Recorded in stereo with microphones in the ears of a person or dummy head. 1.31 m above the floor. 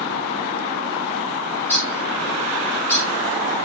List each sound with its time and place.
1.6 s a bird: 15° left (ahead or behind), 4.5 m